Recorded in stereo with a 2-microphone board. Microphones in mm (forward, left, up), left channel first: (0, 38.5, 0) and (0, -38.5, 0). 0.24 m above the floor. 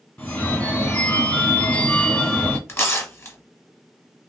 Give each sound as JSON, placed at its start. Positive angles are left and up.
{"t": 0.2, "sound": "a phone ringing", "side_deg": 25, "distance_m": 1.3}
{"t": 2.7, "sound": "tearing paper", "side_deg": 35, "distance_m": 1.2}